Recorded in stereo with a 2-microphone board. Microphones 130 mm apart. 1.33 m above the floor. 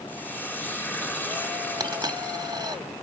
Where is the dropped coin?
30° right (ahead or behind), 2 m.